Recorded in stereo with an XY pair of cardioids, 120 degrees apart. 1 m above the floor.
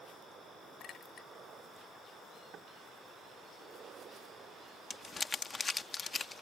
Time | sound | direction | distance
0.8 | a clink | 55° left | ?
2.5 | knocking | 50° right | ?
4.9 | crumpling | 30° left | ?